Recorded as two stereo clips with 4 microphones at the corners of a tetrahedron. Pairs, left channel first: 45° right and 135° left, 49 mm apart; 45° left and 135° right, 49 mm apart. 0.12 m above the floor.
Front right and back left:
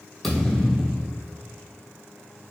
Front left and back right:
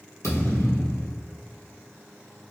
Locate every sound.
0.2 s a thud: 35° left, 1.6 m